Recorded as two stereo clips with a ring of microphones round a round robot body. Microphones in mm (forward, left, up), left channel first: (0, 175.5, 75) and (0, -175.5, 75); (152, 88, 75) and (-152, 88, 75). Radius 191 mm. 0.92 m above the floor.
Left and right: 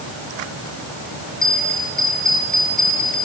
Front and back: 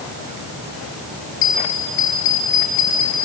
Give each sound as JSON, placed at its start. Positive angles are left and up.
{"t": 1.4, "sound": "a bell", "azimuth_deg": 0, "distance_m": 4.5}